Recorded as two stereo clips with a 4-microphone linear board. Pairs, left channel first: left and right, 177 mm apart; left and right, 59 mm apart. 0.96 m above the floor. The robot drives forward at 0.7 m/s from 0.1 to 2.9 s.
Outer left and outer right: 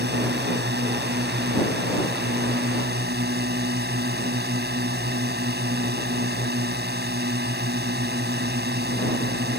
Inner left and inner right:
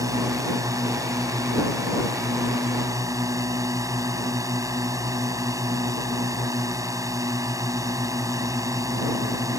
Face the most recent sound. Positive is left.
turn(degrees=-70)  # may be behind; listen again after turning